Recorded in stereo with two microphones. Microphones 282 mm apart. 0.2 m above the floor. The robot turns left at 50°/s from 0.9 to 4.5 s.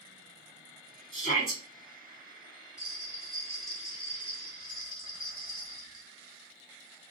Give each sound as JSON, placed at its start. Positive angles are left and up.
{"t": 1.1, "sound": "a shout", "side_deg": -45, "distance_m": 2.0}
{"t": 2.8, "sound": "a bell", "azimuth_deg": -125, "distance_m": 1.7}